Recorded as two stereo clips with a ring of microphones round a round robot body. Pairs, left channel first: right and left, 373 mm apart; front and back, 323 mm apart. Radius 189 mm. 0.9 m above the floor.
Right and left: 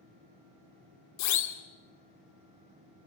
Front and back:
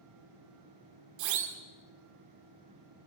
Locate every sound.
1.2 s a siren: 135° right, 2.5 m